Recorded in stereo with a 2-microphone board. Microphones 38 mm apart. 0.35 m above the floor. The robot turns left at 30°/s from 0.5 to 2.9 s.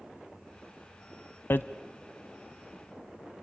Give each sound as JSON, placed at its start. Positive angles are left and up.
{"t": 1.5, "sound": "hammering", "side_deg": 65, "distance_m": 0.5}